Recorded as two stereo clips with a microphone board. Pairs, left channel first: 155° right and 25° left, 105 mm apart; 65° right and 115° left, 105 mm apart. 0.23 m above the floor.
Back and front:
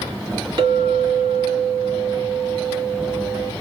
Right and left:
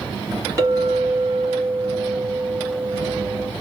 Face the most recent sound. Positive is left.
turn(degrees=60)